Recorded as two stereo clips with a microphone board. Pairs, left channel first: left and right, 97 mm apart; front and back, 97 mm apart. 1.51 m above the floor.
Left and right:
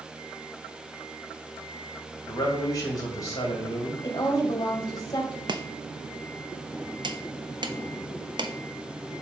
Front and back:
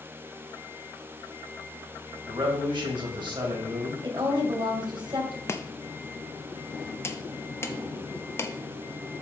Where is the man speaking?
145° left, 2 m.